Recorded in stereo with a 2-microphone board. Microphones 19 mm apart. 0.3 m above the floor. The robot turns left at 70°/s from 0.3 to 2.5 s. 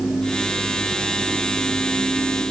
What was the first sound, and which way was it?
Only background noise.